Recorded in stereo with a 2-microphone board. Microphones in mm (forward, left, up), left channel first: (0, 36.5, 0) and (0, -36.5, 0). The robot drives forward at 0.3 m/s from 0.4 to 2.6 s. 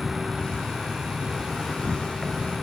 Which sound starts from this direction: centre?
An insect, at 0.0 s.